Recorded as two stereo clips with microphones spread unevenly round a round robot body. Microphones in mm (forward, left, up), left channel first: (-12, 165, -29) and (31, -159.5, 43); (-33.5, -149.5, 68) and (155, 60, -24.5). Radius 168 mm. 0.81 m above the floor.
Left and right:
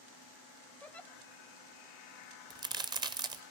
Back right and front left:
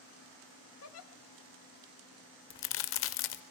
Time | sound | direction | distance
0.8 | a giggle | 175° left | 1.0 m
2.5 | a crack | 150° right | 0.8 m